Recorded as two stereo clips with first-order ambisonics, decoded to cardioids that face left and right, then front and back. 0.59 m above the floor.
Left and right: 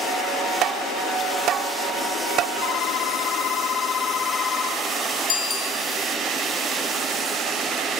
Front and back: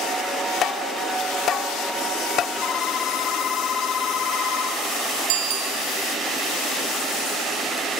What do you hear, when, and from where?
0.6 s tapping: 50° right, 0.8 m
2.6 s a phone ringing: 55° left, 1.2 m
5.3 s a bicycle bell: 155° left, 3 m